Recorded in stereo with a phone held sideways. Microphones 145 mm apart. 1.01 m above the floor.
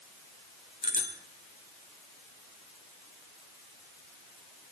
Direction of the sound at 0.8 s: 70° left (ahead or behind).